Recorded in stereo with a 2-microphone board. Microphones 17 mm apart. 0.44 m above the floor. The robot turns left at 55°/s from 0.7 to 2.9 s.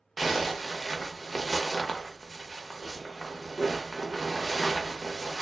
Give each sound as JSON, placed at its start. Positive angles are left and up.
{"t": 0.2, "sound": "a zipper", "azimuth_deg": 170, "distance_m": 0.7}